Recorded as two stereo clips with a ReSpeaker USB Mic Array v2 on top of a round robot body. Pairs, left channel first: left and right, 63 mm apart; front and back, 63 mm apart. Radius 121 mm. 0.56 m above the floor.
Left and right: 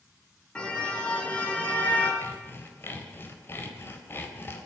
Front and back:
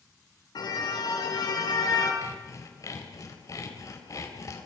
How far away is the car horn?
About 4 m.